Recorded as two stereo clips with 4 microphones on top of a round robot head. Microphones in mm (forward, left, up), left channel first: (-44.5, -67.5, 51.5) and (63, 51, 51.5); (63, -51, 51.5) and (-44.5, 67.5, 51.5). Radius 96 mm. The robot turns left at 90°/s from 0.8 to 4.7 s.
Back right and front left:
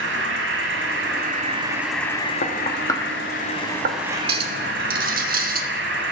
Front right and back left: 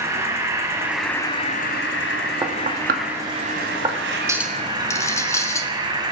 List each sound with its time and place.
0.0 s an insect: 60° left, 1.3 m; by 6.1 s 70° left, 1.3 m
2.4 s knocking: 160° right, 1.0 m; by 4.0 s 60° left, 1.0 m
4.3 s a clink: 60° left, 0.8 m; by 5.7 s 25° left, 0.8 m